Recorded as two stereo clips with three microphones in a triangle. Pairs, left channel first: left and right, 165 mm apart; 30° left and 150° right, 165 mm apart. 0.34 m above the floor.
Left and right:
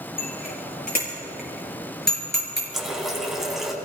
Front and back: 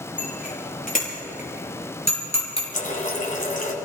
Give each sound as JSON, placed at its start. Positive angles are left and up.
{"t": 0.2, "sound": "a bicycle bell", "azimuth_deg": 65, "distance_m": 6.0}
{"t": 2.7, "sound": "a running tap", "azimuth_deg": 0, "distance_m": 2.0}